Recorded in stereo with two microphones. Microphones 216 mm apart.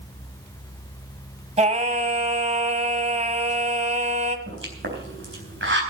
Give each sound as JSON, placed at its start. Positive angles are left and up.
{"t": 1.6, "sound": "singing", "side_deg": -30, "distance_m": 1.3}
{"t": 4.5, "sound": "a pop", "side_deg": -65, "distance_m": 3.5}